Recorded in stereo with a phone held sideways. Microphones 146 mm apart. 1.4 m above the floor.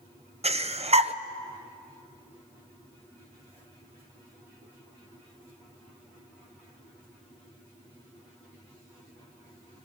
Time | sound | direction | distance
0.4 | breathing | 45° right (ahead or behind) | 0.7 m